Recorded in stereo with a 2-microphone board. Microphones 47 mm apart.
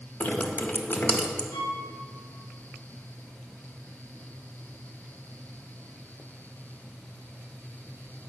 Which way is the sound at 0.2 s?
50° left (ahead or behind).